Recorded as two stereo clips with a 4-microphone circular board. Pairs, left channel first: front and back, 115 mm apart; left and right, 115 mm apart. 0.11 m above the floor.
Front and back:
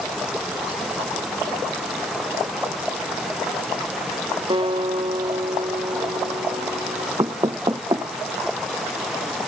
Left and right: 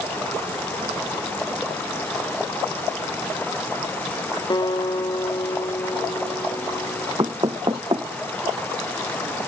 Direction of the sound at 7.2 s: 135° right.